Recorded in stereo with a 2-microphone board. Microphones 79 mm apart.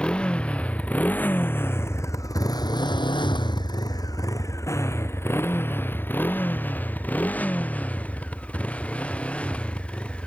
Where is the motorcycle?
10° left (ahead or behind); by 10.3 s 15° left (ahead or behind).